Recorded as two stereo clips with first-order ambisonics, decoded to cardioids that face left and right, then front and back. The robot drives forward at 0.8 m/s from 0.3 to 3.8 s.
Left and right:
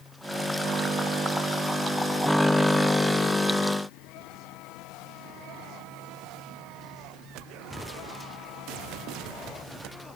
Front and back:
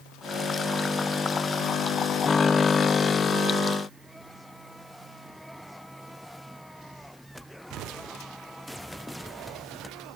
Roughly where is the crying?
I don't hear crying.